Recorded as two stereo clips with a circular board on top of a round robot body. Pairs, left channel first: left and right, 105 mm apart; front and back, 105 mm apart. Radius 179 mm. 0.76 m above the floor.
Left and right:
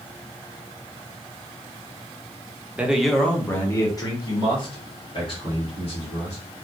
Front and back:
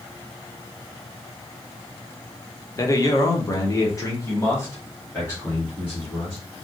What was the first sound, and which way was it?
A man speaking, 25° right.